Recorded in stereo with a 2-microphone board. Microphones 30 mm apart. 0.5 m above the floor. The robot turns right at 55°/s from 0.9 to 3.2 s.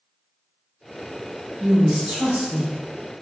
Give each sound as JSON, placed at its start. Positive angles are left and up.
{"t": 1.6, "sound": "a woman speaking", "azimuth_deg": -65, "distance_m": 1.1}